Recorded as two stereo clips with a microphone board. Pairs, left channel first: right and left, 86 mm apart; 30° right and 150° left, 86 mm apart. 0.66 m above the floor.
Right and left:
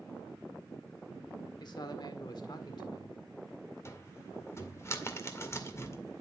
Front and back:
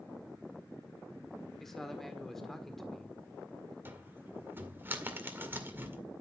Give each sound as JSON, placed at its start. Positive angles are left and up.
{"t": 1.6, "sound": "a man speaking", "azimuth_deg": -115, "distance_m": 1.6}
{"t": 3.9, "sound": "a cupboard door", "azimuth_deg": -145, "distance_m": 2.0}